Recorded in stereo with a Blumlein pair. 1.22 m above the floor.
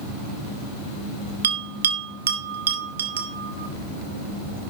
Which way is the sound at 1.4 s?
65° right.